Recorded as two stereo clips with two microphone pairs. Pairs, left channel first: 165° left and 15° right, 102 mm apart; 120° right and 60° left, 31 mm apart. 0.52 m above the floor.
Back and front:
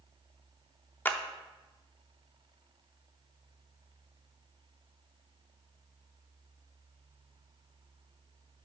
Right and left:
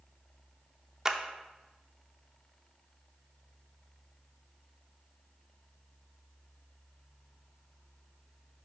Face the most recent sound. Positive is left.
turn(degrees=115)